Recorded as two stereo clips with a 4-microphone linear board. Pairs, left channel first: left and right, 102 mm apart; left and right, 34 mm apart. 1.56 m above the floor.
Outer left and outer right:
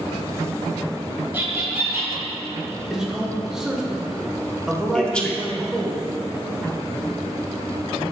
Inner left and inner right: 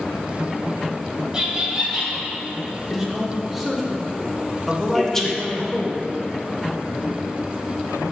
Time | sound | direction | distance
1.3 | laughter | 20° right (ahead or behind) | 2 m
2.9 | a man speaking | 5° right (ahead or behind) | 1.3 m
4.9 | a man speaking | 10° left (ahead or behind) | 1.0 m